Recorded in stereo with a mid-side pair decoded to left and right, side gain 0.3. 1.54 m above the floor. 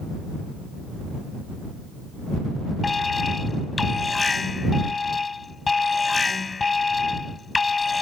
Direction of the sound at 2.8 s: 40° left.